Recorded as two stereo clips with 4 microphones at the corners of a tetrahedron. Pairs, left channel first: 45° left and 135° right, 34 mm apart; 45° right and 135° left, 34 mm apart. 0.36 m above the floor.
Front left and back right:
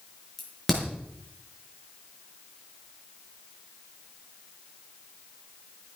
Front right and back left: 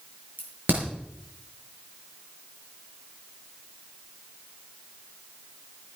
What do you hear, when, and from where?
0.4 s a crack: 130° left, 5.5 m